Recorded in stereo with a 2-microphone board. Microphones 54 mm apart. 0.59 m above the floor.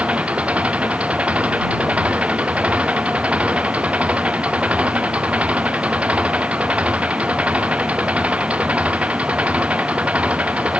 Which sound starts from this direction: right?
An engine running, at 0.0 s.